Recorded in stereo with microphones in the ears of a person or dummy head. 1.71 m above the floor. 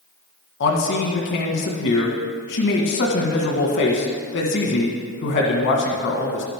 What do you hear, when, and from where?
0.6 s a man speaking: 60° left (ahead or behind), 1.8 m